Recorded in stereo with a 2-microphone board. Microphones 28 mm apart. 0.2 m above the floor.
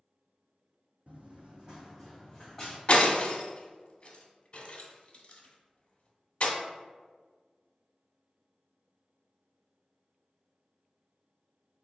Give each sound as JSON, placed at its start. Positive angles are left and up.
{"t": 1.1, "sound": "running footsteps", "side_deg": -60, "distance_m": 0.6}
{"t": 2.9, "sound": "breaking glass", "side_deg": 40, "distance_m": 0.6}